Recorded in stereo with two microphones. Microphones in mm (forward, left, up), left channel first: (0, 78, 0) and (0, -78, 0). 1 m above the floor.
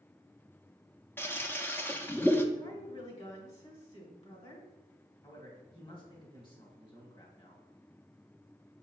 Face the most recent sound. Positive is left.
turn(degrees=30)  # may be behind; listen again after turning